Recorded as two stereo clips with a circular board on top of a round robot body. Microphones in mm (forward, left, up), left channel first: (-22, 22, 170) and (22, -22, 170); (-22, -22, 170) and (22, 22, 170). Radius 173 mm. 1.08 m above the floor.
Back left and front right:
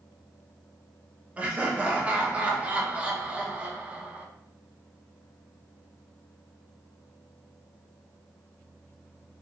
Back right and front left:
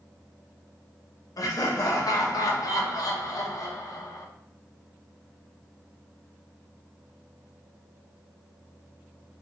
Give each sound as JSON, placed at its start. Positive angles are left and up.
{"t": 1.4, "sound": "laughter", "azimuth_deg": -115, "distance_m": 0.9}